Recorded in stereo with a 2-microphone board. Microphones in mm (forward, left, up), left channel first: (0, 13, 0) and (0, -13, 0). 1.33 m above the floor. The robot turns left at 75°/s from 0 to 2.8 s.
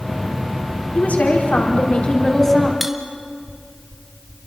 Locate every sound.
0.9 s a woman speaking: 130° left, 4 m; by 2.7 s straight ahead, 4 m
2.8 s cutlery clinking: 5° right (ahead or behind), 1.6 m